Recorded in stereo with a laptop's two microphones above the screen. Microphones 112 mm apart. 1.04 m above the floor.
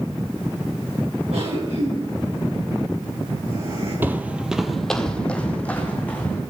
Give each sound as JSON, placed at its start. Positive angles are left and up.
{"t": 1.3, "sound": "a cough", "side_deg": -80, "distance_m": 9.0}
{"t": 4.0, "sound": "footsteps", "side_deg": -15, "distance_m": 1.1}